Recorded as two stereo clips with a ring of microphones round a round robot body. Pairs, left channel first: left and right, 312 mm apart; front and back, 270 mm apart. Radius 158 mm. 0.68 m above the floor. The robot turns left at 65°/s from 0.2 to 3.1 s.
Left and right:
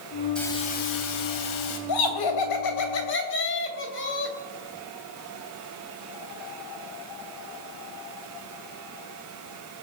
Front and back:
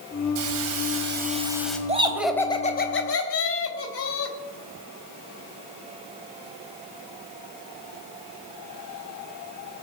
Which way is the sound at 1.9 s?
115° left.